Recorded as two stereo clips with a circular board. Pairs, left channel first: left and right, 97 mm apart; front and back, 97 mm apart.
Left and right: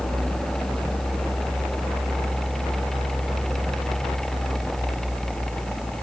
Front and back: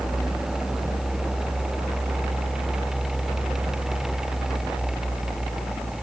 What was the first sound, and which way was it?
Only background noise.